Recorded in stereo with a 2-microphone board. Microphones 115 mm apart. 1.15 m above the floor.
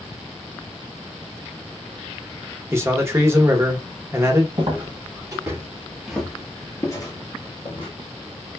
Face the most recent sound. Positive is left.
turn(degrees=50)  # may be behind; listen again after turning